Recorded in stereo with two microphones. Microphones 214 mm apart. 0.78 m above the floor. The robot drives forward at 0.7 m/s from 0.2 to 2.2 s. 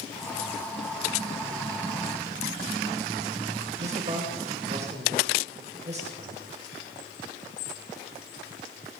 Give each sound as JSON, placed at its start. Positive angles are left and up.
{"t": 3.8, "sound": "a man speaking", "side_deg": -30, "distance_m": 3.5}